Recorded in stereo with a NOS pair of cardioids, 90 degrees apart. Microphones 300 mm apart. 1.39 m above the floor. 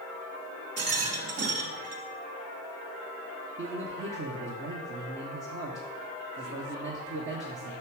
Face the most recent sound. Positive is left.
turn(degrees=-40)